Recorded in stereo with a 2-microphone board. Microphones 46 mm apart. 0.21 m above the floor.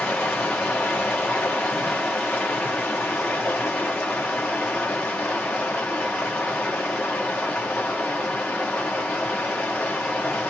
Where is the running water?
20° left (ahead or behind), 1.9 m.